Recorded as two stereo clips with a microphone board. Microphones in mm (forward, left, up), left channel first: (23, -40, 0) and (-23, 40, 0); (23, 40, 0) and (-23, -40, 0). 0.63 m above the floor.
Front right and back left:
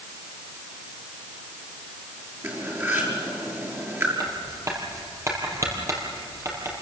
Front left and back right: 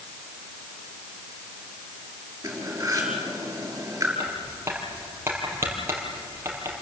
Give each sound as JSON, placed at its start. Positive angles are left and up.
{"t": 2.4, "sound": "cutlery clinking", "azimuth_deg": -175, "distance_m": 6.5}
{"t": 4.2, "sound": "writing", "azimuth_deg": 175, "distance_m": 5.0}